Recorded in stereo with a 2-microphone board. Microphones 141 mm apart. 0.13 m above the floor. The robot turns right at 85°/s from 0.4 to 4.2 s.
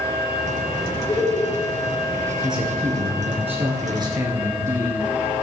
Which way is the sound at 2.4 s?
Straight behind.